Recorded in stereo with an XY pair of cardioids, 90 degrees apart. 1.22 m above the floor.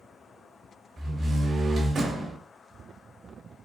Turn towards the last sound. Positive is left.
turn(degrees=-55)